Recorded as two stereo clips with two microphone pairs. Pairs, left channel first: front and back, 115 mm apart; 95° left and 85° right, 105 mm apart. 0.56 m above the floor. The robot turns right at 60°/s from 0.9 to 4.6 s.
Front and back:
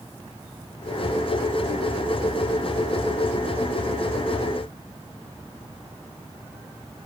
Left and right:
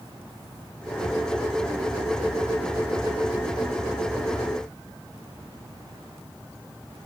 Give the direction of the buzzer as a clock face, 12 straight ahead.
No buzzer in this recording.